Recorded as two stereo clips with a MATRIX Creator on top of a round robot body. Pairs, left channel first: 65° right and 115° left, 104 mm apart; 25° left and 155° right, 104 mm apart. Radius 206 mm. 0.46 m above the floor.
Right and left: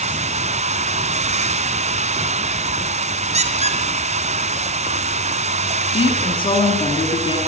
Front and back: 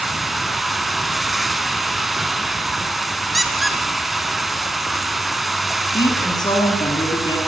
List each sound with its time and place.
0.0 s running water: 115° left, 1.1 m
3.3 s a squeak: 115° left, 2.5 m
5.9 s a woman speaking: 25° right, 8.5 m